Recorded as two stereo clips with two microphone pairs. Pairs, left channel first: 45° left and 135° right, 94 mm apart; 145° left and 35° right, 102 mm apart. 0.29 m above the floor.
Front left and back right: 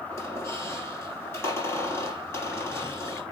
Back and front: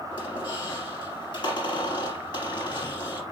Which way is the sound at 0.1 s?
110° left.